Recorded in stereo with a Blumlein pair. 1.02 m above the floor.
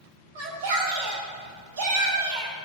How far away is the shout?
About 4.5 m.